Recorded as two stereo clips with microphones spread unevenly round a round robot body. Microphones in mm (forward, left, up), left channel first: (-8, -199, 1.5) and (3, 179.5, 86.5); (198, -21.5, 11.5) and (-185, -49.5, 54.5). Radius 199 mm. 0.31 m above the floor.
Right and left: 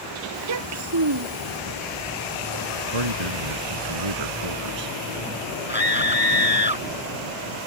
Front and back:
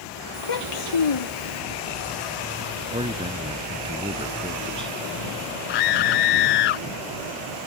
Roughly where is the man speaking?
Left.